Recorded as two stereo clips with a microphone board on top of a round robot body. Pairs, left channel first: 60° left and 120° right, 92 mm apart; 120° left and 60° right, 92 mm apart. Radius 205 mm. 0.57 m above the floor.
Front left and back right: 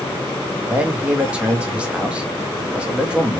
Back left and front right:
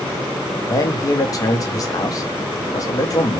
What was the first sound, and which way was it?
A man speaking, 165° left.